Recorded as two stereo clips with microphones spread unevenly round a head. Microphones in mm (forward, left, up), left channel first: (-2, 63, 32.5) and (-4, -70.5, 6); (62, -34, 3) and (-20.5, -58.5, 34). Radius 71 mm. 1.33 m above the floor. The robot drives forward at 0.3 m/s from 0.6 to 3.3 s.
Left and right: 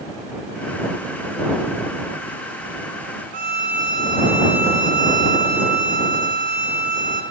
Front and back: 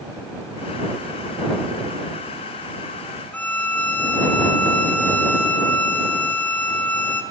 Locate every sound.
3.3 s a violin: 60° right, 4.5 m